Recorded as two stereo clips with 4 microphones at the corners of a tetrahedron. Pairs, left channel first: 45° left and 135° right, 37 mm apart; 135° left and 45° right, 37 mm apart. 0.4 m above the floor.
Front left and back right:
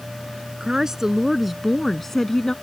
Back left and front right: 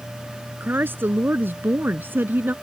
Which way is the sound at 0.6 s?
65° right.